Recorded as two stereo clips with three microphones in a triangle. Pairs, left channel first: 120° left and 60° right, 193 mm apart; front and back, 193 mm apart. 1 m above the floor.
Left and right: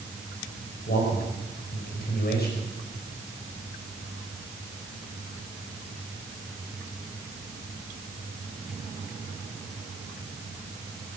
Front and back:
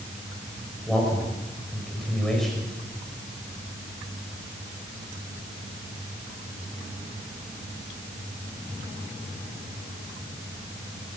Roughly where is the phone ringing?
I don't hear a phone ringing.